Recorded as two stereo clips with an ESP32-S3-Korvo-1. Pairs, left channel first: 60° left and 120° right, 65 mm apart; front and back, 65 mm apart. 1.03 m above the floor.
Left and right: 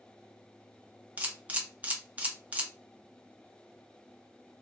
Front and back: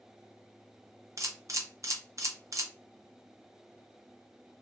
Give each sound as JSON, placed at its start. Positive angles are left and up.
{"t": 1.2, "sound": "a camera shutter", "azimuth_deg": 180, "distance_m": 0.7}